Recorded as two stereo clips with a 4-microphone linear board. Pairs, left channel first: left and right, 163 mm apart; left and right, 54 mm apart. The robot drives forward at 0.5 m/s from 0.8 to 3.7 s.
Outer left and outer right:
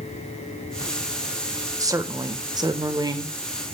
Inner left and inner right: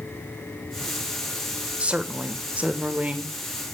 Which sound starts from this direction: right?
A woman speaking, at 1.8 s.